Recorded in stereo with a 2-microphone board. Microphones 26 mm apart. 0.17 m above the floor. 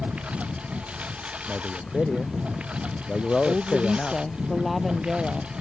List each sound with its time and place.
0.0 s a lawn mower: 60° right (ahead or behind); by 5.6 s 50° right (ahead or behind)
1.5 s a man speaking: 40° left (ahead or behind)
3.5 s a woman speaking: centre (ahead or behind)